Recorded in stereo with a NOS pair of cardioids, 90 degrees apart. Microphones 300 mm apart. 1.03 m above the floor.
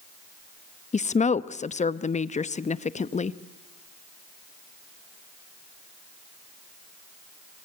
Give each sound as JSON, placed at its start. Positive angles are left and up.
{"t": 0.9, "sound": "a woman speaking", "azimuth_deg": 25, "distance_m": 0.9}